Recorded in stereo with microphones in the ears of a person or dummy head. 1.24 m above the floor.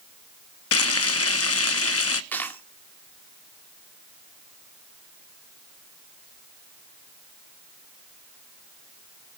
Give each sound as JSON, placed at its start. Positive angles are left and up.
{"t": 0.7, "sound": "frying", "side_deg": 75, "distance_m": 1.0}
{"t": 2.3, "sound": "a dropped coin", "side_deg": 10, "distance_m": 1.6}